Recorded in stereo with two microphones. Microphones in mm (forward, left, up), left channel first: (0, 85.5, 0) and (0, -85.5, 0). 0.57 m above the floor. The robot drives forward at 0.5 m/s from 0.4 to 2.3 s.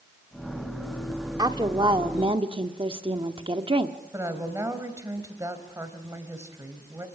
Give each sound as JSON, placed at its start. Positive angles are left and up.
{"t": 1.4, "sound": "a woman speaking", "side_deg": -25, "distance_m": 1.4}
{"t": 4.1, "sound": "a woman speaking", "side_deg": -15, "distance_m": 3.0}